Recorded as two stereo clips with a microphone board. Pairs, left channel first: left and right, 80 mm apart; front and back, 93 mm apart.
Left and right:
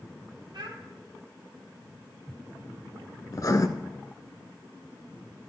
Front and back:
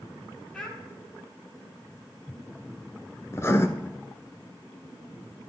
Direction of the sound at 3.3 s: 55° left.